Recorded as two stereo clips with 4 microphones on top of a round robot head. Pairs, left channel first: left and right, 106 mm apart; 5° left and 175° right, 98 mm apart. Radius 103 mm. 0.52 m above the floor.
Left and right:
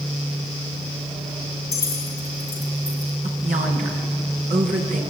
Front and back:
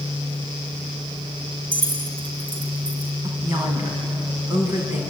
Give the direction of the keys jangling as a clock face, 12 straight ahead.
7 o'clock.